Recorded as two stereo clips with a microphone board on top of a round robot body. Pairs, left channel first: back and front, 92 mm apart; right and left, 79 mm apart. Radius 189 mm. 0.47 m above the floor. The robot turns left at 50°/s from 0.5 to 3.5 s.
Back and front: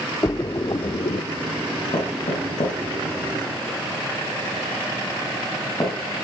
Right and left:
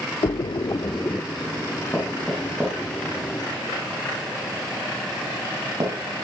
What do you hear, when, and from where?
0.2 s a splash: 125° right, 0.7 m; by 1.2 s 160° right, 0.7 m
1.9 s knocking: 160° right, 6 m; by 6.0 s 125° left, 6 m